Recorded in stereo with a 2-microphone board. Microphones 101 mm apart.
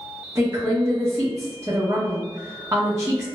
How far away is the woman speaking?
About 0.8 m.